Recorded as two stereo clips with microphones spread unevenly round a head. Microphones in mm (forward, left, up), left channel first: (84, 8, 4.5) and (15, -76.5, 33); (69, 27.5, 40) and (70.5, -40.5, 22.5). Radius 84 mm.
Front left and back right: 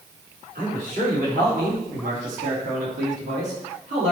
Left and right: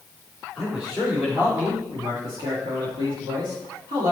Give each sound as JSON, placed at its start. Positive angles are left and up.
{"t": 0.6, "sound": "a man speaking", "azimuth_deg": -175, "distance_m": 2.5}